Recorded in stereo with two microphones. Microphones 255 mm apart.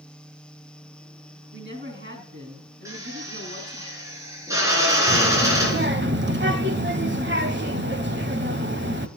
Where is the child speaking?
45° right (ahead or behind), 0.9 m.